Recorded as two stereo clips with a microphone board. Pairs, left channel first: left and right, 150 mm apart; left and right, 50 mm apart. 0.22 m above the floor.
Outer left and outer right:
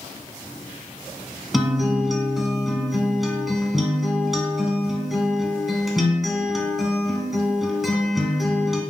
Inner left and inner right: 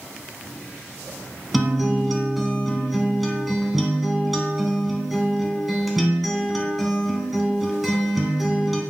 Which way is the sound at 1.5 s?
Centre (ahead or behind).